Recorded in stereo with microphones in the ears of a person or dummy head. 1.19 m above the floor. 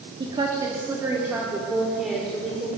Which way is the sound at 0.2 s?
25° right (ahead or behind).